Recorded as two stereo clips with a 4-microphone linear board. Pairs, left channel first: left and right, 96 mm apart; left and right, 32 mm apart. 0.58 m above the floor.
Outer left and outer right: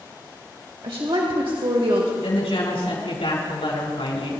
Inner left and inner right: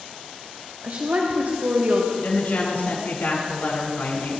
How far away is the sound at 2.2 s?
About 6.5 m.